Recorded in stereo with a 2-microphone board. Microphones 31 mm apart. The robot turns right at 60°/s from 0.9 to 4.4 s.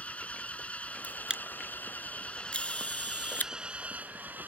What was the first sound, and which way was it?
An engine running, 50° left.